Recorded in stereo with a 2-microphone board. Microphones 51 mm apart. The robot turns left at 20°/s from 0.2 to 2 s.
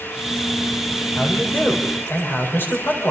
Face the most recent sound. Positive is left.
turn(degrees=45)  # may be behind; listen again after turning